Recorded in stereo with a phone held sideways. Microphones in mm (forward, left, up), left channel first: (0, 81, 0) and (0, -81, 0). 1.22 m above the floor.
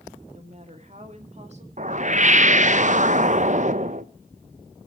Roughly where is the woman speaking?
Right.